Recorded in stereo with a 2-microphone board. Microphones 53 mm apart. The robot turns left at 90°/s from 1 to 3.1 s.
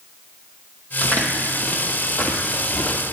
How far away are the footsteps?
About 1.4 m.